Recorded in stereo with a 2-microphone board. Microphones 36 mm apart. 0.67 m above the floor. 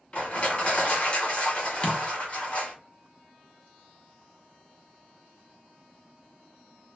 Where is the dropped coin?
30° left (ahead or behind), 0.5 m.